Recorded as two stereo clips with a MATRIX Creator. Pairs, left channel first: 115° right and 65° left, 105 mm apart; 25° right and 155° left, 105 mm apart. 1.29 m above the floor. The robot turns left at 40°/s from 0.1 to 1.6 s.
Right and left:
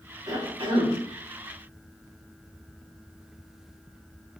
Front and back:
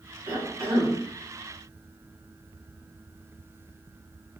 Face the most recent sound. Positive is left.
turn(degrees=75)